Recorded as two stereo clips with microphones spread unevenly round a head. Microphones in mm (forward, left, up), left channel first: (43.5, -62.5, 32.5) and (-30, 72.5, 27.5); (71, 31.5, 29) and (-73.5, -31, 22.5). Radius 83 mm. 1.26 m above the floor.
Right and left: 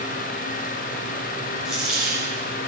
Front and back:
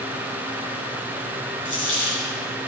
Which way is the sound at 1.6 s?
30° left.